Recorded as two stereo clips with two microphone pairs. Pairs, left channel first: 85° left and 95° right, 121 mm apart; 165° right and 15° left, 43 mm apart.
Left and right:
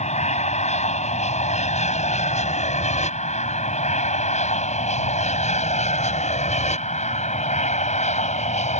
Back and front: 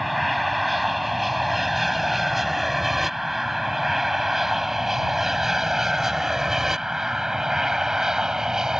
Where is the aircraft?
100° left; by 8.8 s 85° left.